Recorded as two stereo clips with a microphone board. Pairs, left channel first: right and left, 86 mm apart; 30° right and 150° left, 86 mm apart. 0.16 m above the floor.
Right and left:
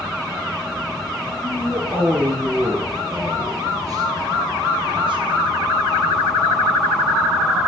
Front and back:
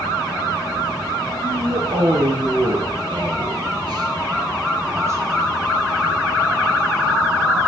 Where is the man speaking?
165° left, 3.5 m; by 5.7 s 90° left, 2.5 m.